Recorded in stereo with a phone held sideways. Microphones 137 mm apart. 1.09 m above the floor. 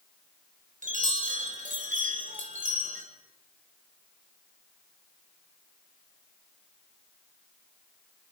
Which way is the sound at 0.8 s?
70° right (ahead or behind).